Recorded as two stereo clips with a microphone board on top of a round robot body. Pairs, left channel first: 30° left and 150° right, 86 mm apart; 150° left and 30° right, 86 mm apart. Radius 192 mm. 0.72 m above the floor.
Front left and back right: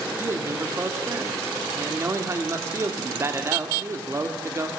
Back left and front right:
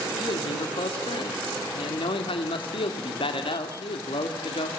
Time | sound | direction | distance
0.2 | a man speaking | 150° left | 1.9 m